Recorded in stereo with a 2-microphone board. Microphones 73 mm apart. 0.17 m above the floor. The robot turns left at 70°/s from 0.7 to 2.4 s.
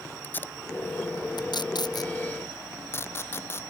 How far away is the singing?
No singing in this recording.